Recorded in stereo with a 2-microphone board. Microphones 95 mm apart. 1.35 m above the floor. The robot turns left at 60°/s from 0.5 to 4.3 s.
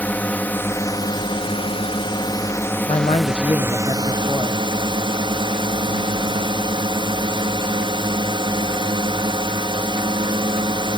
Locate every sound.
0.0 s a drone: 160° left; by 11.0 s 65° right
2.9 s a man speaking: 105° left; by 4.6 s 20° left